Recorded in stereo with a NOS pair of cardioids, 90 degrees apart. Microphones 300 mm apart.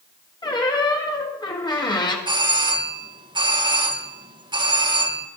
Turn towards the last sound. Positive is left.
turn(degrees=-15)